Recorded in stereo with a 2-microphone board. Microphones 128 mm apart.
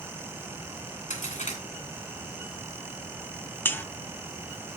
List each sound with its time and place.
1.1 s a crack: 80° left, 2.5 m
3.6 s a buzzer: 15° left (ahead or behind), 0.5 m